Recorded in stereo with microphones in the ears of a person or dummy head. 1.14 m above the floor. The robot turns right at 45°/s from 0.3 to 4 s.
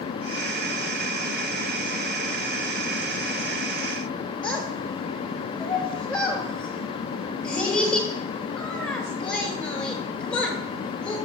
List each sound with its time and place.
4.4 s a child speaking: 5° left (ahead or behind), 3.5 m